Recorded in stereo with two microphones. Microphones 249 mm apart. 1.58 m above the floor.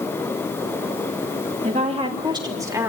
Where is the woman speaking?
30° right (ahead or behind), 2.5 m; by 2.9 s 10° right (ahead or behind), 3 m.